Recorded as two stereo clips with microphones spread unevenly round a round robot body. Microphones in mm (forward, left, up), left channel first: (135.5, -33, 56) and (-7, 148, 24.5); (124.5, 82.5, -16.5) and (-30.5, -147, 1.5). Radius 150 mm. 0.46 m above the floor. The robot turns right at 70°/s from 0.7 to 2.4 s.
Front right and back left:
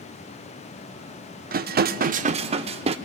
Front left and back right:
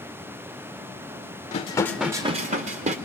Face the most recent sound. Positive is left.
turn(degrees=175)